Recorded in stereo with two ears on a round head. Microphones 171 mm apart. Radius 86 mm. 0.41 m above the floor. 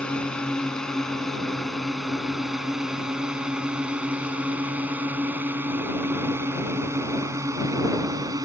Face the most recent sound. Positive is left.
turn(degrees=-20)  # may be behind; listen again after turning